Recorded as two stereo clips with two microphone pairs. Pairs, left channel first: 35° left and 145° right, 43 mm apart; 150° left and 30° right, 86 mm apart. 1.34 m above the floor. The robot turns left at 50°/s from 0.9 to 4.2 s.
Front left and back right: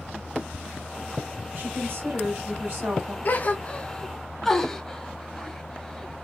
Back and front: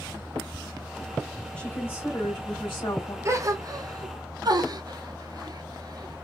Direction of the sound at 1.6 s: 135° right.